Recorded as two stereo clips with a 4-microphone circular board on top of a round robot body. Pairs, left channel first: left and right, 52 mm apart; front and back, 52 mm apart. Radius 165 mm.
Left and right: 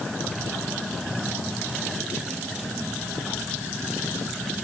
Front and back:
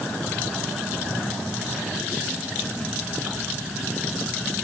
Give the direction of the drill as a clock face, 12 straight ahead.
No drill in this recording.